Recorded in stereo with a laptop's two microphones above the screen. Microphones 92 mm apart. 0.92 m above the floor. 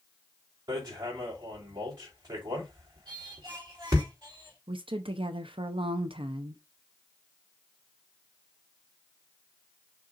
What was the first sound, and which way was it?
Hammering, 45° right (ahead or behind).